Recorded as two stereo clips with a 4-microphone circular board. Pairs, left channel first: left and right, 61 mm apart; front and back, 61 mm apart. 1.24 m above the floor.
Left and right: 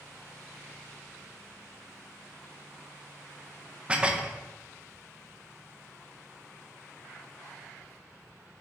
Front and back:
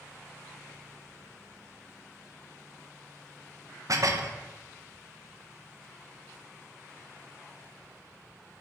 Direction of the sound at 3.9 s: 160° right.